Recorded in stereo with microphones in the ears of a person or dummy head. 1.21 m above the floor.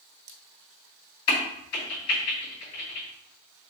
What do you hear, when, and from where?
1.3 s a crack: 85° left, 2.5 m